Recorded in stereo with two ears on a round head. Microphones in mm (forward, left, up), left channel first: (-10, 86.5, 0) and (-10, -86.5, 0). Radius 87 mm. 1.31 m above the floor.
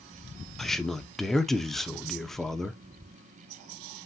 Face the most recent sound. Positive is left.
turn(degrees=5)  # may be behind; listen again after turning